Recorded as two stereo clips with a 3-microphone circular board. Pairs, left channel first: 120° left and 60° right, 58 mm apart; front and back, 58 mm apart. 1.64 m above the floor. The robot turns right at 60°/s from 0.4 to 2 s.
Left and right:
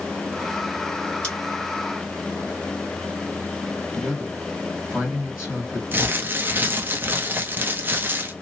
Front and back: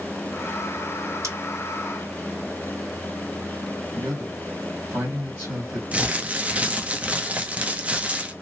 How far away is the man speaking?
About 1.9 m.